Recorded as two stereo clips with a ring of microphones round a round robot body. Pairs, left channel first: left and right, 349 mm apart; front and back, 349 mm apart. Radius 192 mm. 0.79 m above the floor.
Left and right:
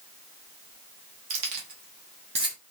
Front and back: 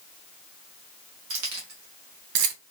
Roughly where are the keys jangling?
Behind right.